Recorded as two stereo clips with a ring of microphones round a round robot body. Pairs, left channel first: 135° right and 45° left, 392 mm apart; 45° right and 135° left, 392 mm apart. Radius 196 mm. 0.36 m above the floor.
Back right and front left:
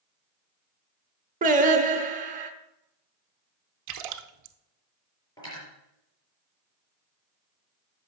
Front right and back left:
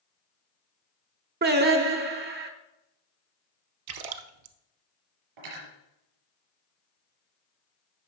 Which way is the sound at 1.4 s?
95° left.